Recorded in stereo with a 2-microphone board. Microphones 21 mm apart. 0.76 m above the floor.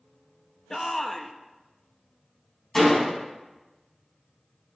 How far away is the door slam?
About 5 m.